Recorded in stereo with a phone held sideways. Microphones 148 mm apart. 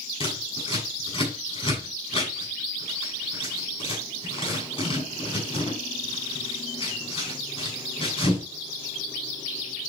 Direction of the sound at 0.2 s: 35° left (ahead or behind).